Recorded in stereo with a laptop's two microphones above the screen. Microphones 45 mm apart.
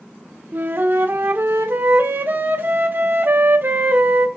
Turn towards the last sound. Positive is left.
turn(degrees=-50)  # may be behind; listen again after turning